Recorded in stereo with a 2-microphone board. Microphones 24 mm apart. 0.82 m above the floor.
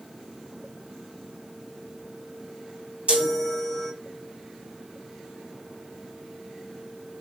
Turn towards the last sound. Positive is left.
turn(degrees=-65)  # may be behind; listen again after turning